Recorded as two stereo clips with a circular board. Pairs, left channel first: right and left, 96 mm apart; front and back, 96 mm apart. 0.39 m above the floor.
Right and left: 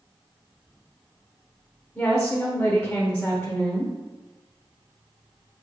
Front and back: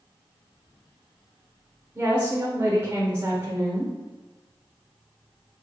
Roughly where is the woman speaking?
Behind right.